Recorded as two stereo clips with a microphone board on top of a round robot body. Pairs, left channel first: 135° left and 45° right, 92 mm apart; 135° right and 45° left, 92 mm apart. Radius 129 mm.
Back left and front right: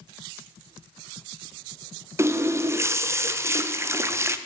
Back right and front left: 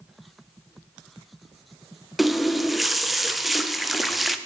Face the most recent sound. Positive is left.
turn(degrees=-45)